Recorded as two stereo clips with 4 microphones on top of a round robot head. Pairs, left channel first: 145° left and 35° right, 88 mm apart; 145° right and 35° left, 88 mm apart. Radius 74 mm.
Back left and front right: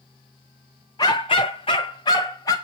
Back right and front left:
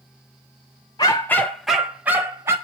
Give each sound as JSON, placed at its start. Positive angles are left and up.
{"t": 1.0, "sound": "a dog barking", "azimuth_deg": 180, "distance_m": 0.7}